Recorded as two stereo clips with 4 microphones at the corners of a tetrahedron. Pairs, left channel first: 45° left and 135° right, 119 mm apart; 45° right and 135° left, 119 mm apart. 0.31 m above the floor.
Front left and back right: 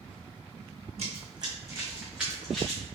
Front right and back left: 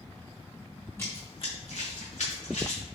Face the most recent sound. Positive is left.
turn(degrees=-40)